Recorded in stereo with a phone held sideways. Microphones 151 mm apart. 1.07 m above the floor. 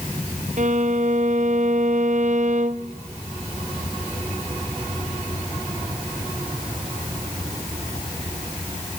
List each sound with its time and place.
0.6 s a violin: 55° right (ahead or behind), 0.6 m